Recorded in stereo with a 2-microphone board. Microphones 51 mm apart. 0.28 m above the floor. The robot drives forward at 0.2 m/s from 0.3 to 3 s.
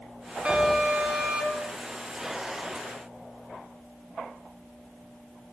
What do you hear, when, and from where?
0.5 s an alarm: 20° right (ahead or behind), 2.5 m